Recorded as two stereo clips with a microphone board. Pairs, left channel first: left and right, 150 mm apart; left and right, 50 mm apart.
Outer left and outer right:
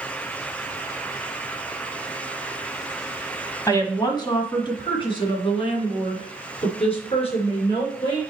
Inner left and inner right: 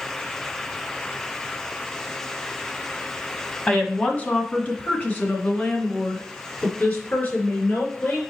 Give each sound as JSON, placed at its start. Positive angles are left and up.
{"t": 3.7, "sound": "a woman speaking", "side_deg": 20, "distance_m": 1.4}